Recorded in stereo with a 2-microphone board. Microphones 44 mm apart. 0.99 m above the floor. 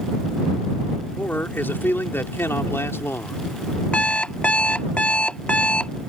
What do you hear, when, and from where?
1.2 s a man speaking: 45° left (ahead or behind); by 3.8 s 75° left (ahead or behind)
3.9 s an alarm clock: 25° left (ahead or behind)